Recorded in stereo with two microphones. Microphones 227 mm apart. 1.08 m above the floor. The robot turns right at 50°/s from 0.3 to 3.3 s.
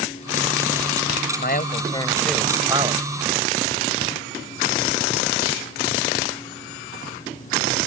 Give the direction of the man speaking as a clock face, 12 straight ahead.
8 o'clock.